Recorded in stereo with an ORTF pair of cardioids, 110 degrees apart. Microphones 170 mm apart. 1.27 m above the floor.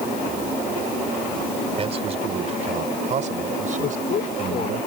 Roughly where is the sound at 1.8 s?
Ahead right.